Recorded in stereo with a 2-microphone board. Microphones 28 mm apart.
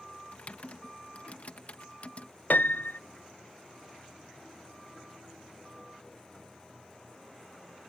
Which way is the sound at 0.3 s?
50° left (ahead or behind).